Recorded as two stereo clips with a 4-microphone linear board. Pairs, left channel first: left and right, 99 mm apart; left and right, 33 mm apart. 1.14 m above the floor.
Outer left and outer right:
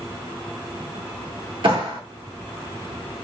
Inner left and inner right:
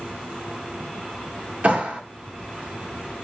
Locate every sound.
1.6 s a clap: 50° right (ahead or behind), 2.5 m